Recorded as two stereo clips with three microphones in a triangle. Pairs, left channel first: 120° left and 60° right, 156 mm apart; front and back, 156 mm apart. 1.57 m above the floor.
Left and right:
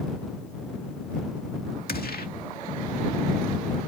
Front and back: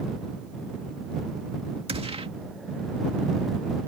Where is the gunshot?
130° left.